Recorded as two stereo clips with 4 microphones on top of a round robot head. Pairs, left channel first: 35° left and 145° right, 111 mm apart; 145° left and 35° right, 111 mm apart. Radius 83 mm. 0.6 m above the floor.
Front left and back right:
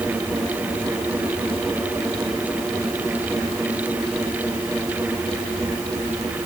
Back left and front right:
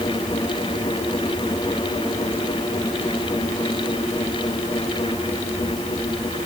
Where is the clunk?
I don't hear a clunk.